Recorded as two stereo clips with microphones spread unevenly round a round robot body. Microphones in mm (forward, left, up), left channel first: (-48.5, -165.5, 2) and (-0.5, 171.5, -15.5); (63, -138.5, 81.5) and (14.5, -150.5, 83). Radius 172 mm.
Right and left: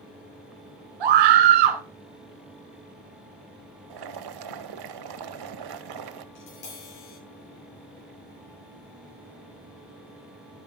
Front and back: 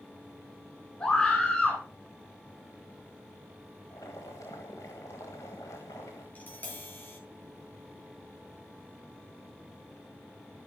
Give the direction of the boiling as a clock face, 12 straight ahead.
10 o'clock.